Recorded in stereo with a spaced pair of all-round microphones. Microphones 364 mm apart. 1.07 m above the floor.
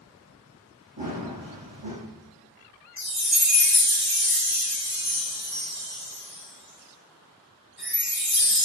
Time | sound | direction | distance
1.0 | running footsteps | 70° right (ahead or behind) | 3 m
3.0 | a chime | 5° right (ahead or behind) | 3 m